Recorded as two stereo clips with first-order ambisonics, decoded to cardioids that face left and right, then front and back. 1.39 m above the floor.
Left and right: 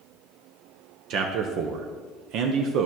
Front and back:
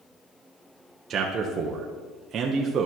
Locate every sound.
1.1 s a man speaking: 125° right, 0.8 m